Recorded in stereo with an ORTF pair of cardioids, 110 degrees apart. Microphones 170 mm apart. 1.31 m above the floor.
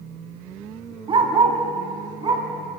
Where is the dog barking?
30° right, 4.5 m.